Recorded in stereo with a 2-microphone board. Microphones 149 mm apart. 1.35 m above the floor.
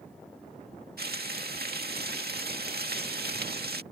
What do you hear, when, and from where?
1.0 s frying: 85° right